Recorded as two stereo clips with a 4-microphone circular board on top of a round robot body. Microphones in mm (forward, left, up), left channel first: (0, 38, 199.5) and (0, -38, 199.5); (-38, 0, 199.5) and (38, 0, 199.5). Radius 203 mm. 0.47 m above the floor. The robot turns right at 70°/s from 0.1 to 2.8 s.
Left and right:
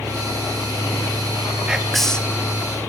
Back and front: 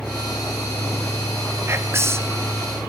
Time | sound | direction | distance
1.7 | whispering | 20° right | 1.5 m